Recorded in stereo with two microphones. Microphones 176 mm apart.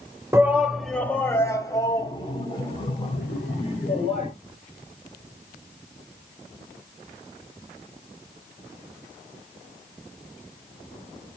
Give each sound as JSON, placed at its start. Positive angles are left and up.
{"t": 0.3, "sound": "a shout", "side_deg": -15, "distance_m": 1.1}